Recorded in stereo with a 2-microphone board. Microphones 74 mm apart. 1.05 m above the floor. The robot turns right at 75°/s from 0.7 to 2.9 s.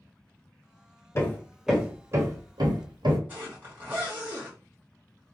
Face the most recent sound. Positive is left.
turn(degrees=-25)  # may be behind; listen again after turning